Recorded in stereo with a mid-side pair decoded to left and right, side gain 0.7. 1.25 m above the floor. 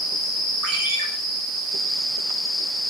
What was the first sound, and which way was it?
A ringtone, 55° right.